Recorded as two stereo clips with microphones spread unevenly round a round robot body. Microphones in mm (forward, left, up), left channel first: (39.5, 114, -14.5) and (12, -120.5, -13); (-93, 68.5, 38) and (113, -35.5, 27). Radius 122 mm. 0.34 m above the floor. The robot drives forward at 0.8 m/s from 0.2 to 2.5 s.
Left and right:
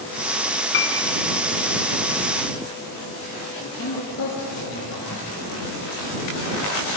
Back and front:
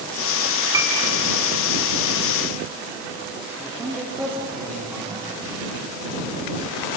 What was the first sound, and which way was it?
A piano, 50° left.